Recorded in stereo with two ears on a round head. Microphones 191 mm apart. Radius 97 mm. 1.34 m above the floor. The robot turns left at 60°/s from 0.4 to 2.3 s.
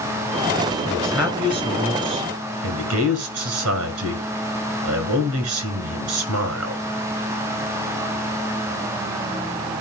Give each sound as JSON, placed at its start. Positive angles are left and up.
{"t": 0.9, "sound": "a man speaking", "azimuth_deg": 15, "distance_m": 6.5}